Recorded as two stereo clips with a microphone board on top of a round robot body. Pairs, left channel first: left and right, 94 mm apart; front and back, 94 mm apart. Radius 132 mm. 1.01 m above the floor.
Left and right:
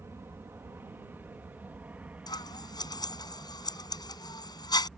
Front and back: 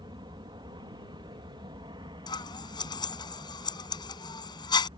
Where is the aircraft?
150° right; by 5.0 s 175° right.